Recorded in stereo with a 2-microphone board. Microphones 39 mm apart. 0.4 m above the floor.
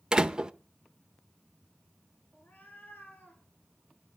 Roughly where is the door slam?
Centre.